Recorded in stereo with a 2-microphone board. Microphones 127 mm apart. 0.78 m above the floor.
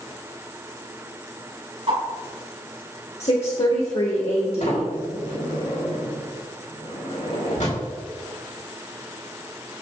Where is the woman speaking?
55° left (ahead or behind), 1.3 m.